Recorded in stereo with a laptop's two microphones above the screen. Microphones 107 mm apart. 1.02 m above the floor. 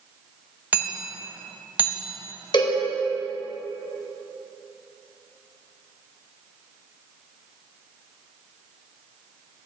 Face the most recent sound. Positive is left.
turn(degrees=45)  # may be behind; listen again after turning